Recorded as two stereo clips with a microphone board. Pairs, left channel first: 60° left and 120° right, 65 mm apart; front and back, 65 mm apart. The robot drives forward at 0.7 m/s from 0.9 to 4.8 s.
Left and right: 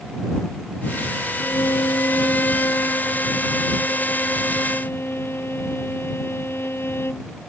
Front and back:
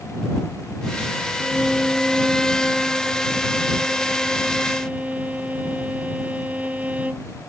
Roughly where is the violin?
Left.